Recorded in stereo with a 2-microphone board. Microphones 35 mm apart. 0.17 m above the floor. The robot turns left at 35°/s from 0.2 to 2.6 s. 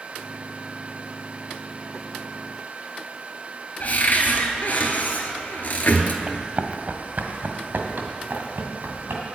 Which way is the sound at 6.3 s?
30° right (ahead or behind).